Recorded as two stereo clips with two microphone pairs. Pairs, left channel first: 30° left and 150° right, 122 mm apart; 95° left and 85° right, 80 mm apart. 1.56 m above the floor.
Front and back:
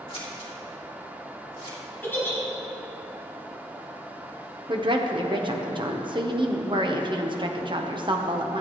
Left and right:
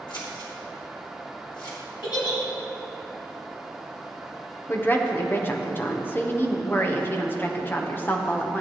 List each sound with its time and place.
0.1 s scissors: 75° left, 2.5 m
2.0 s a giggle: 100° left, 3 m
4.7 s a woman speaking: 160° left, 1.1 m